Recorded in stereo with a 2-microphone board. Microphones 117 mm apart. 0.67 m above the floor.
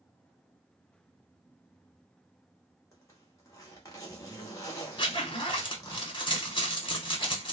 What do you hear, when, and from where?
2.9 s a zipper: 25° left (ahead or behind), 1.1 m
5.0 s a zipper: 45° left (ahead or behind), 0.9 m